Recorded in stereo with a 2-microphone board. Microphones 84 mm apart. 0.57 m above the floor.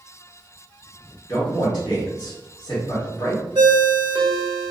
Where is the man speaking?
55° left (ahead or behind), 1.4 m.